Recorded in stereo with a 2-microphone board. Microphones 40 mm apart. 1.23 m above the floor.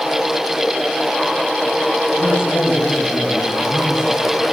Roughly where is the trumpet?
No trumpet in this recording.